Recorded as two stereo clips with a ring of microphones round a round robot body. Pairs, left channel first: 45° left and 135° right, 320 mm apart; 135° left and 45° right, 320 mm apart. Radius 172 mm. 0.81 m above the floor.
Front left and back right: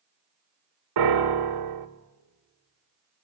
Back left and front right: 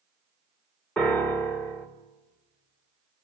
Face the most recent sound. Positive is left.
turn(degrees=-140)